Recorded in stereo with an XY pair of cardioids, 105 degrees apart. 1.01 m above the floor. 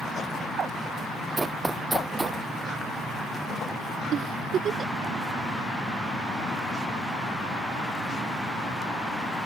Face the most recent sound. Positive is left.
turn(degrees=-55)